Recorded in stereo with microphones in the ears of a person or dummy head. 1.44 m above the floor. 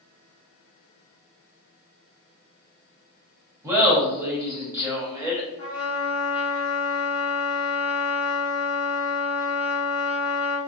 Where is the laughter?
15° right (ahead or behind), 0.8 m.